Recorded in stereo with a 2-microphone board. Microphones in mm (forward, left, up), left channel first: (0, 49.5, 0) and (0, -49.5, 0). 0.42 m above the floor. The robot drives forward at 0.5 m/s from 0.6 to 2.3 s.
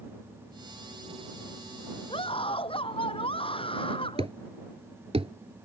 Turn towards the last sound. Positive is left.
turn(degrees=-80)